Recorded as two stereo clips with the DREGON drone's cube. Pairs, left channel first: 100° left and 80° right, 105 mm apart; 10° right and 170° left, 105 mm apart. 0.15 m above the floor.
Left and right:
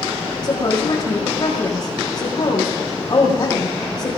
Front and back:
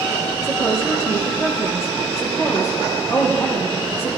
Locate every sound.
0.4 s a woman speaking: 50° left, 4.5 m